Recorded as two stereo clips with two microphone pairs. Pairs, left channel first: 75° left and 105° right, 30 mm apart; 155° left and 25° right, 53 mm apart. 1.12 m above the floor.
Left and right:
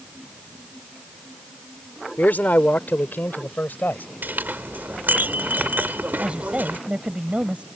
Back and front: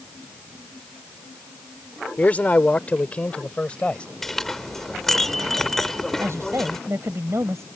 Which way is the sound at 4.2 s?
120° right.